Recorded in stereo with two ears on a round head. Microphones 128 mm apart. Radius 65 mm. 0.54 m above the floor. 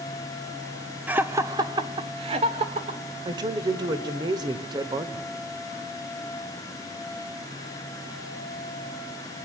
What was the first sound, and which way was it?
Laughter, 10° right (ahead or behind).